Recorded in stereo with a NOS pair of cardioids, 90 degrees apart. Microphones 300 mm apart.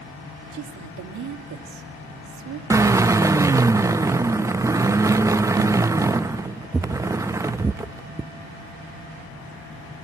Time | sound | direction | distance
0.5 | a woman speaking | 70° right | 2.5 m
2.7 | a drill | 10° right | 0.6 m